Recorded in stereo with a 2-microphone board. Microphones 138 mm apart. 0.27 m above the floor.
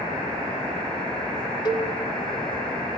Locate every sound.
1.6 s a cowbell: 30° left (ahead or behind), 0.8 m